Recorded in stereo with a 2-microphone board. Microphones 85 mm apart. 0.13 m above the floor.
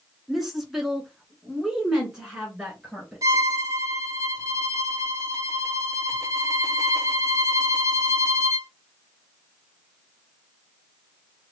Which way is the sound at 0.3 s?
Centre (ahead or behind).